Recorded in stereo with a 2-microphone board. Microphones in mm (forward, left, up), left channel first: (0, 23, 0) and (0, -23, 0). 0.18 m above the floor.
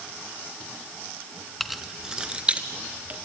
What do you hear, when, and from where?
1.6 s keys jangling: centre (ahead or behind), 1.1 m; by 3.1 s 35° right (ahead or behind), 2.5 m